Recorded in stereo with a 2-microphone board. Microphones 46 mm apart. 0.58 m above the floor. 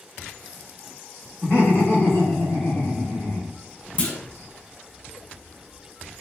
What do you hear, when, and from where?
1.4 s laughter: 40° left (ahead or behind), 1.7 m; by 3.6 s centre (ahead or behind), 1.3 m
4.0 s a clunk: 25° left (ahead or behind), 0.6 m